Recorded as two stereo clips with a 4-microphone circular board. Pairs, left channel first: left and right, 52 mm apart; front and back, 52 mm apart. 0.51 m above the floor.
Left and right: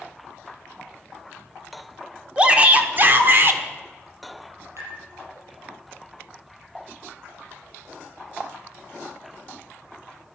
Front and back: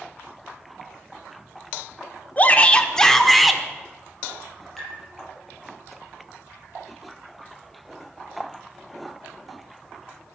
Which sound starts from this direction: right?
Tapping, at 4.8 s.